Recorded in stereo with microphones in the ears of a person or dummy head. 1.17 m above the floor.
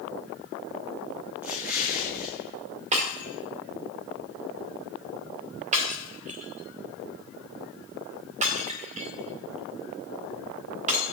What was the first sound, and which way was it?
An explosion, 15° right (ahead or behind).